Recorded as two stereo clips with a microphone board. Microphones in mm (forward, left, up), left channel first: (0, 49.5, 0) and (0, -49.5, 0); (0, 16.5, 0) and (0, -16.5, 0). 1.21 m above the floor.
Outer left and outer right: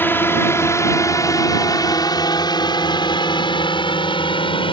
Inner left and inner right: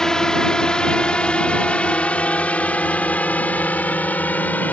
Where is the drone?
20° left (ahead or behind); by 4.7 s 60° left (ahead or behind).